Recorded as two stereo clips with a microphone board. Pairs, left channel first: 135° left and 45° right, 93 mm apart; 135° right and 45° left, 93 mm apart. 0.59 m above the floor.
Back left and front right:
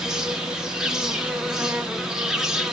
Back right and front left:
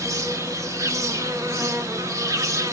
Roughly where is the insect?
Ahead left.